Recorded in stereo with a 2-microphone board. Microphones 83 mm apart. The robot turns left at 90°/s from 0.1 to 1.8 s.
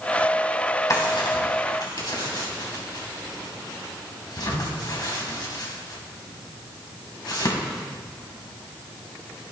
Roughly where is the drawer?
Left.